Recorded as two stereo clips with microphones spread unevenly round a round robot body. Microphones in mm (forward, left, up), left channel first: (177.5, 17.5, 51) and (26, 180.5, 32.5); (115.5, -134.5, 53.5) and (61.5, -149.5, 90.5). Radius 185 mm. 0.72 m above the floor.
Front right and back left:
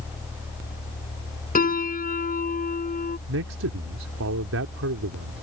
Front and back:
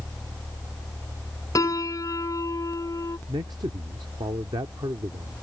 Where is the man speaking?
160° left.